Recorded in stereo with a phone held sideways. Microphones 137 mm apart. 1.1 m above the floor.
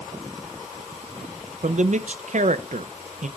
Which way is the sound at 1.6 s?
60° right (ahead or behind).